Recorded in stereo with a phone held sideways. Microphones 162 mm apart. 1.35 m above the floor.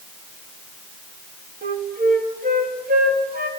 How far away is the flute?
About 2.5 m.